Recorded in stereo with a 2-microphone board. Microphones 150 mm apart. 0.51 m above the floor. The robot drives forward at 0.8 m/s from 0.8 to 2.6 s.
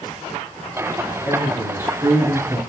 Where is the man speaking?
15° right (ahead or behind), 5.5 m; by 2.6 s 20° right (ahead or behind), 4.5 m.